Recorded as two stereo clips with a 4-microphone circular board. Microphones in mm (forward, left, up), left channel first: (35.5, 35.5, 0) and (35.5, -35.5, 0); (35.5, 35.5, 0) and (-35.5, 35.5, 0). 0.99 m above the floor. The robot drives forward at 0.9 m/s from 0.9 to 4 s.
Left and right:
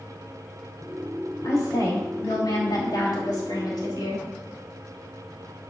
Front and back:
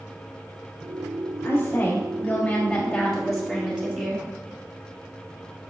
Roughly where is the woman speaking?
Ahead left.